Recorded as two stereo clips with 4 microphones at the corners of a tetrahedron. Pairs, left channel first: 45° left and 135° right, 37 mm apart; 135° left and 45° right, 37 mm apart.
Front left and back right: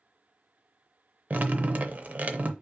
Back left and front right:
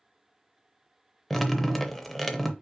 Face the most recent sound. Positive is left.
turn(degrees=-140)